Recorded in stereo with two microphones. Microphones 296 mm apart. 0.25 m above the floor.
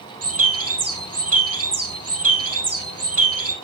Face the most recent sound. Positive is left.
turn(degrees=-50)  # may be behind; listen again after turning